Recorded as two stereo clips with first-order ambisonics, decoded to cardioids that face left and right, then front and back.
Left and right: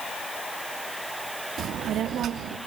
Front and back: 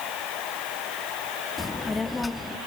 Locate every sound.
1.6 s a child speaking: 75° right, 0.5 m